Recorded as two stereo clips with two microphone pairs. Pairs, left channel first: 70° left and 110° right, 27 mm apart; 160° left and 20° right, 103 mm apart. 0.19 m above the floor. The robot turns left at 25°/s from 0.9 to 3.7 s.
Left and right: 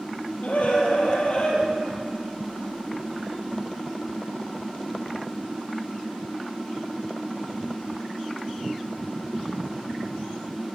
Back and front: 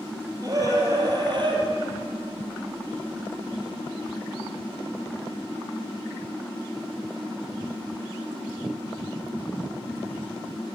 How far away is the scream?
About 4.5 m.